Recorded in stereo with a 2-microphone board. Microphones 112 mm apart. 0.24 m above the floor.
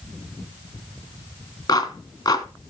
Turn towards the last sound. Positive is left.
turn(degrees=35)  # may be behind; listen again after turning